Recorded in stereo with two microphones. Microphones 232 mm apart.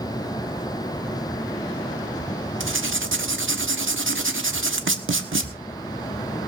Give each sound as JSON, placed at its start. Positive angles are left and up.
{"t": 2.6, "sound": "writing", "side_deg": -60, "distance_m": 1.3}